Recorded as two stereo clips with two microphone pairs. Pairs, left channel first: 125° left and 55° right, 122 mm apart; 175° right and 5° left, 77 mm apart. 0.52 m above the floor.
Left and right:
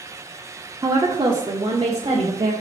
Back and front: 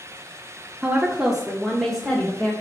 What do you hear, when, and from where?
0.8 s a woman speaking: 50° right, 0.8 m; by 2.5 s 95° right, 1.4 m